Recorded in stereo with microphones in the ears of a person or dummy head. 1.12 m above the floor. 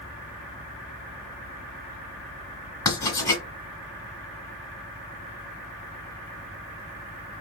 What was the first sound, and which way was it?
Writing, 15° left (ahead or behind).